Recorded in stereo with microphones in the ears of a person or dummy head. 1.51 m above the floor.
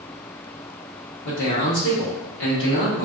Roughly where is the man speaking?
Left.